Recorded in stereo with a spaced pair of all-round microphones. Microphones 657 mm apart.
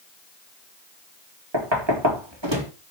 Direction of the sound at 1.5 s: 40° right (ahead or behind).